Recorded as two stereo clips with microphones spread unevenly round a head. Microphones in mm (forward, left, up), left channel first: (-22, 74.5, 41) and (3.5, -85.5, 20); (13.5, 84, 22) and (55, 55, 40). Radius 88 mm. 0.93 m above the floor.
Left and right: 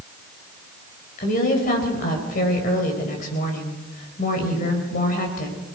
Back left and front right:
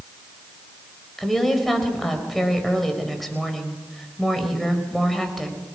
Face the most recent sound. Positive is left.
turn(degrees=55)